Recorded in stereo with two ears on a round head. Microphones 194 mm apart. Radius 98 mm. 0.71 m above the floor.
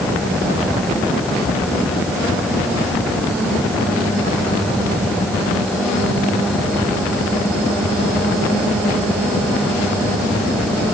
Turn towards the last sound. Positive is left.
No sound to turn to.